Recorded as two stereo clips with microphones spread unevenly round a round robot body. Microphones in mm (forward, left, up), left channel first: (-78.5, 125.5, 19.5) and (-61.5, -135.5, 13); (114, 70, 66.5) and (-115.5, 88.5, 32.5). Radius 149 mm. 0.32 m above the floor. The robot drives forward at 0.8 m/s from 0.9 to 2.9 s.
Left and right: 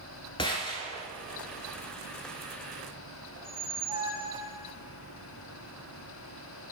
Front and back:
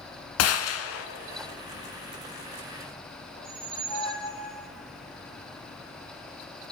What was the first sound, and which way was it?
A gunshot, 20° left.